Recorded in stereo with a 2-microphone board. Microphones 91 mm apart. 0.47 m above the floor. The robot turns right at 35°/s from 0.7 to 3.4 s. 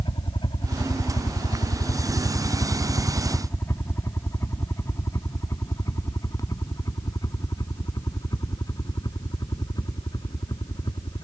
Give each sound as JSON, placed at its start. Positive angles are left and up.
{"t": 0.0, "sound": "a helicopter", "side_deg": 60}